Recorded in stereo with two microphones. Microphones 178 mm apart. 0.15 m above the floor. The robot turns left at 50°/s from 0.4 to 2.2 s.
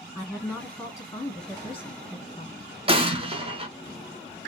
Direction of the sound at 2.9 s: 30° right (ahead or behind).